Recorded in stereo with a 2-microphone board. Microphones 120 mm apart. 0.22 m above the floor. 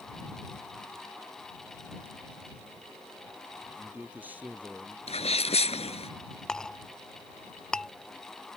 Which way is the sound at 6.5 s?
5° left (ahead or behind).